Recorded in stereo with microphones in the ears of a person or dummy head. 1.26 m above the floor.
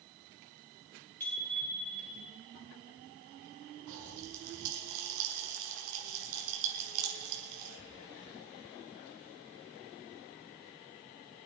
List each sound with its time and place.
1.2 s a bicycle bell: 10° left (ahead or behind), 7 m; by 2.3 s 5° left (ahead or behind), 7 m
3.9 s a pop: 75° right (ahead or behind), 4 m